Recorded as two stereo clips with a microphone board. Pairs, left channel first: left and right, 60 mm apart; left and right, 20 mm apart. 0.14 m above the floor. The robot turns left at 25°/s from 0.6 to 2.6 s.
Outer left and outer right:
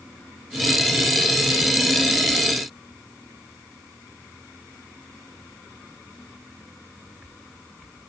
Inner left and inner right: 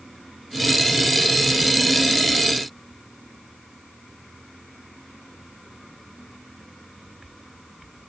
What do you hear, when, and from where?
Only background noise.